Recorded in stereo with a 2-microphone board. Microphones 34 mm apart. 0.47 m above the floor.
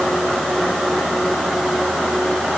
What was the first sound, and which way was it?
Only background noise.